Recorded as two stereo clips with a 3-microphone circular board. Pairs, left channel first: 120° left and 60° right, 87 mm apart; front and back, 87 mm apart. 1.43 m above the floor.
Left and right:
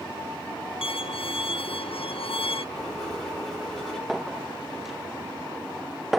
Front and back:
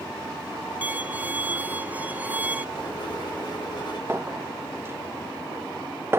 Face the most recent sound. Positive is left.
turn(degrees=-145)